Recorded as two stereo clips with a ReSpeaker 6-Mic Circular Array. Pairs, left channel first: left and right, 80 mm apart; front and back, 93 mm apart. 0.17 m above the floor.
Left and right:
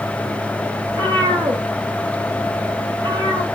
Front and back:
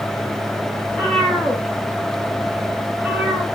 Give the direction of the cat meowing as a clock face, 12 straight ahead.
2 o'clock.